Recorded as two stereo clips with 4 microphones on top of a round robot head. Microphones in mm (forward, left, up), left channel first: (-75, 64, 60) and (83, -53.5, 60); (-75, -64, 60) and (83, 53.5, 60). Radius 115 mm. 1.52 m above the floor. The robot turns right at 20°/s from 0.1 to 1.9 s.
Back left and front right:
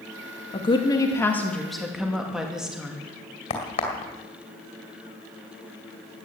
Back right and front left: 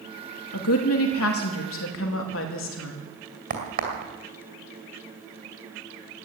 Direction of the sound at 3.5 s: 85° left.